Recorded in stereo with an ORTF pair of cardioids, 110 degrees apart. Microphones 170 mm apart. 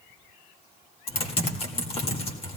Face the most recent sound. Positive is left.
turn(degrees=35)